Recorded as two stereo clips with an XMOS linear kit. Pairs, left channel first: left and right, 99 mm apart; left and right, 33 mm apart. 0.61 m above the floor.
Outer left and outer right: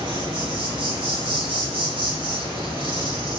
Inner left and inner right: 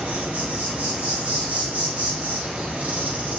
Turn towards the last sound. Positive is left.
turn(degrees=-60)  # may be behind; listen again after turning